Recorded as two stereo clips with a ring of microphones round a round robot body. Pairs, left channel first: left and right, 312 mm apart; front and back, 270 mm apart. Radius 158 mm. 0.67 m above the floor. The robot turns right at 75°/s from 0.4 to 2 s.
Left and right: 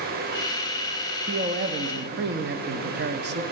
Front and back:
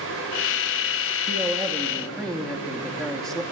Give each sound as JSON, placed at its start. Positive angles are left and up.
{"t": 1.3, "sound": "a man speaking", "azimuth_deg": -140, "distance_m": 0.8}